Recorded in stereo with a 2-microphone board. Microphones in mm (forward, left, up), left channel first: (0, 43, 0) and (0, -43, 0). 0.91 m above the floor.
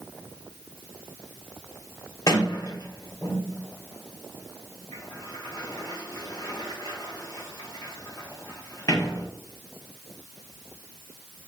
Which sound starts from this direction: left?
A sliding door, at 2.3 s.